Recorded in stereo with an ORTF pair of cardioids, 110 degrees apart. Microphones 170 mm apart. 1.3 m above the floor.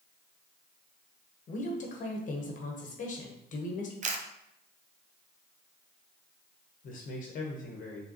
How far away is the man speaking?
About 1.0 m.